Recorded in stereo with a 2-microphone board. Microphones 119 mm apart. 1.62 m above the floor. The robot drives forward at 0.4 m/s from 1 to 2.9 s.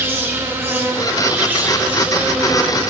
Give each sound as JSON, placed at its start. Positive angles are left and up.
{"t": 0.0, "sound": "an insect", "side_deg": -20, "distance_m": 1.0}